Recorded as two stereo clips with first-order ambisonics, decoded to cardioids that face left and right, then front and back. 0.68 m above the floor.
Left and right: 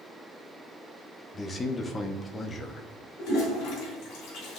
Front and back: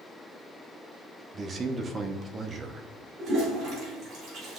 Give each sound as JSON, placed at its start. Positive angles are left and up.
{"t": 1.3, "sound": "a man speaking", "azimuth_deg": 140, "distance_m": 0.6}
{"t": 3.2, "sound": "a toilet flushing", "azimuth_deg": 135, "distance_m": 2.5}